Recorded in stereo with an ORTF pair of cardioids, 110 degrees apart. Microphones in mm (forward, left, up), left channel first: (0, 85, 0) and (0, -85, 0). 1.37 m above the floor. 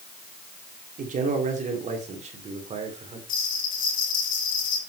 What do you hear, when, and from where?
1.0 s a man speaking: 50° right, 4 m; by 3.2 s 40° right, 4.5 m
3.3 s a bell: 50° left, 4.5 m